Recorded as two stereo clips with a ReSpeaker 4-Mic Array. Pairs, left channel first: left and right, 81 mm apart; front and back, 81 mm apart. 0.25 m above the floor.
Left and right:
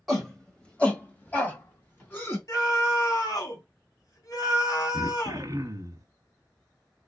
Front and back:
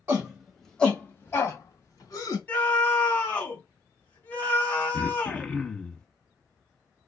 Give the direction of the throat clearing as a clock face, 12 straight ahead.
2 o'clock.